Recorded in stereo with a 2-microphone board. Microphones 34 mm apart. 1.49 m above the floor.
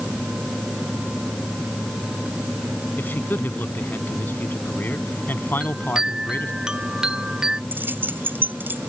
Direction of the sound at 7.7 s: 80° right.